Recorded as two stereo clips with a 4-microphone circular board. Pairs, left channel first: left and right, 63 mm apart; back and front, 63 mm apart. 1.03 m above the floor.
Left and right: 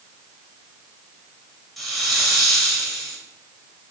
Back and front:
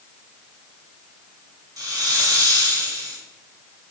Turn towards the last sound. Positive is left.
turn(degrees=0)